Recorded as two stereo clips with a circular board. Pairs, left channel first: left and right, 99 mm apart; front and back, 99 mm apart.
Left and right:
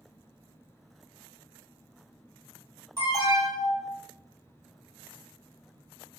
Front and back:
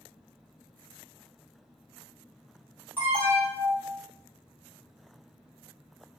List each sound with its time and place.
3.0 s an alarm: 120° right, 1.7 m